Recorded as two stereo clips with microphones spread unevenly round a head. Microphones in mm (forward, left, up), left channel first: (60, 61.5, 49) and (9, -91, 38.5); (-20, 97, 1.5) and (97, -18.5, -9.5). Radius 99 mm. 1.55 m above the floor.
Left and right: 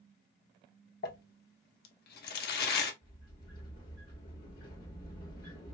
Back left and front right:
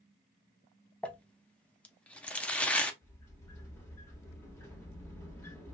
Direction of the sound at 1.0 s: 55° left.